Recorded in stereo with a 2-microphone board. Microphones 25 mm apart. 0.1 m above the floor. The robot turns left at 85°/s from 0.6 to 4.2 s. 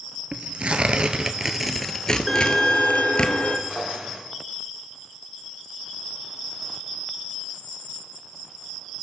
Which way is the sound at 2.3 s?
175° right.